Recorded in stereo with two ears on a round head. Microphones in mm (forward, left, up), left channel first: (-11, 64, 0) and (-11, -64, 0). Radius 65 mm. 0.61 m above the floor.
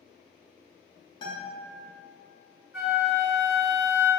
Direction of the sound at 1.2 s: 30° left (ahead or behind).